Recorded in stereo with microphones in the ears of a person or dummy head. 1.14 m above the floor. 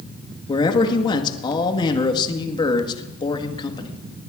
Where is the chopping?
No chopping in this recording.